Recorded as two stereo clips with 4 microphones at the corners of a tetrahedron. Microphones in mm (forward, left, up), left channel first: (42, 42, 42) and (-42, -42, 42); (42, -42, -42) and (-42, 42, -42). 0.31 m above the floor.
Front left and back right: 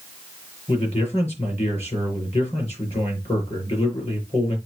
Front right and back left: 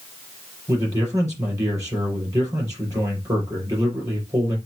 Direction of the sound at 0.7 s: 75° left.